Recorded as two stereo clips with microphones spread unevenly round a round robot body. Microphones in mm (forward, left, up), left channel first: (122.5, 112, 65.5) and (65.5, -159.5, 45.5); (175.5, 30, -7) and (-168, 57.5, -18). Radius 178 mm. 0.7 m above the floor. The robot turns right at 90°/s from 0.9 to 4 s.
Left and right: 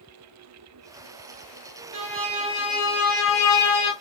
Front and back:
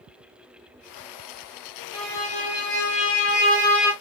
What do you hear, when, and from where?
1.9 s a violin: 85° right, 2.5 m; by 3.9 s 95° left, 2.5 m